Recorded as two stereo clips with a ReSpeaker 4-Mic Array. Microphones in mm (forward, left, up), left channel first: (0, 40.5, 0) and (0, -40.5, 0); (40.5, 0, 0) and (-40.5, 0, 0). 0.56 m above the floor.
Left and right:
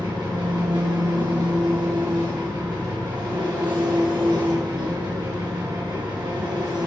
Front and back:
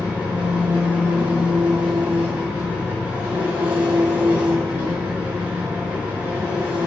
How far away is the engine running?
About 4.5 m.